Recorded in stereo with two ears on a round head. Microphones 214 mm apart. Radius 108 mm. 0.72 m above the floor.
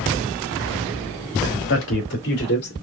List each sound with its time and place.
1.7 s a man speaking: 55° left (ahead or behind), 1.9 m; by 2.7 s 45° left (ahead or behind), 2.5 m